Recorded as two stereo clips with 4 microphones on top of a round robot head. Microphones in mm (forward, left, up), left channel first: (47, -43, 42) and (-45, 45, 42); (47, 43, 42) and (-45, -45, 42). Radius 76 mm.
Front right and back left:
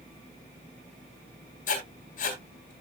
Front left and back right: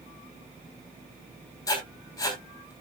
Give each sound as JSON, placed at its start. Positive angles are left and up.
{"t": 1.7, "sound": "writing", "azimuth_deg": -20, "distance_m": 3.5}